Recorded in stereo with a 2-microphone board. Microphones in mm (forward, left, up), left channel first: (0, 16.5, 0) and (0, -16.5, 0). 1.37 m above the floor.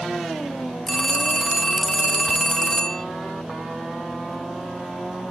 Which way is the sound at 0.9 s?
15° left (ahead or behind).